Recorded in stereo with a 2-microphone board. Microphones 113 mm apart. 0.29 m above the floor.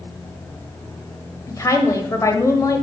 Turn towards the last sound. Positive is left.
turn(degrees=30)  # may be behind; listen again after turning